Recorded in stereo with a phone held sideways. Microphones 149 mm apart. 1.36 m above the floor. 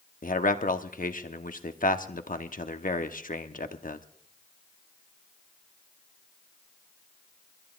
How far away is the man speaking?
About 0.9 m.